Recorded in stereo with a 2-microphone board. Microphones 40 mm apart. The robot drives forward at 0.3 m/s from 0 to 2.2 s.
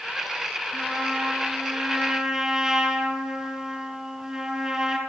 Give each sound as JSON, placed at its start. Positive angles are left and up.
{"t": 0.7, "sound": "a trumpet", "side_deg": -20, "distance_m": 9.0}